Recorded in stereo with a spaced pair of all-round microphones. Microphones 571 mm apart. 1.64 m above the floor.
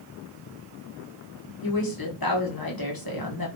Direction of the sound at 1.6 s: 40° left (ahead or behind).